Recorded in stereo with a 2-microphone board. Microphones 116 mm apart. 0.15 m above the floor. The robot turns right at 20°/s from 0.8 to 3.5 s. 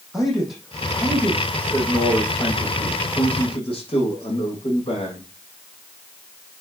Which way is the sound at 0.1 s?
Straight ahead.